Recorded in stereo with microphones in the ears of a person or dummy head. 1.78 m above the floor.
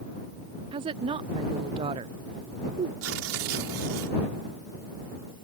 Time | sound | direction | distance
0.7 | a woman speaking | 30° right (ahead or behind) | ?
3.0 | tearing paper | 75° right (ahead or behind) | ?